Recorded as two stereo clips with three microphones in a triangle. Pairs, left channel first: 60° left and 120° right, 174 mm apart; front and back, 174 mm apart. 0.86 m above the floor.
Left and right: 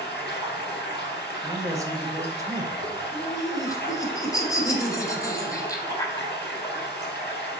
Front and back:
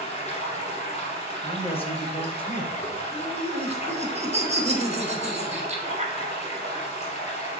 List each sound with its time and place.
0.0 s running water: 55° left, 3 m
1.4 s a man speaking: 50° right, 1.3 m
3.1 s laughter: 130° left, 1.7 m